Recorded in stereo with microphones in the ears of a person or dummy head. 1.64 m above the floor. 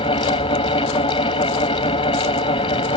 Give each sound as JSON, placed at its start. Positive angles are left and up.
{"t": 0.0, "sound": "a fan", "side_deg": 25}